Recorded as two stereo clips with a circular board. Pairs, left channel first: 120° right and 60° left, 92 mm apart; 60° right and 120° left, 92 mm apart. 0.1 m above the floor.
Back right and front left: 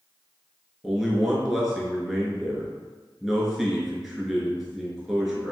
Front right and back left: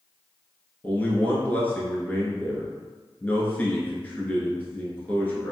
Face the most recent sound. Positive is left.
turn(degrees=-25)